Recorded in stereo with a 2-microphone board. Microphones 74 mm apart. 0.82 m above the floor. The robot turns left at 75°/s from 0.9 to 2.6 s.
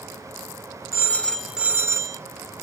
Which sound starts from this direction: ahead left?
A phone ringing, at 0.9 s.